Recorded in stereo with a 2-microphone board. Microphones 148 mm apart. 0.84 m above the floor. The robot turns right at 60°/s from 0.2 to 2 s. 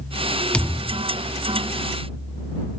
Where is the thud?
5° left; by 1.1 s 40° left.